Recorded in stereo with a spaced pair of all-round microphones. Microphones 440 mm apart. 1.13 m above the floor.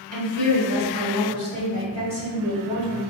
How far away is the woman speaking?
About 2.0 m.